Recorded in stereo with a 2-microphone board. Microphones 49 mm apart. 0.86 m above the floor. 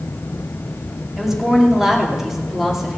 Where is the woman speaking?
5° right (ahead or behind), 2.5 m.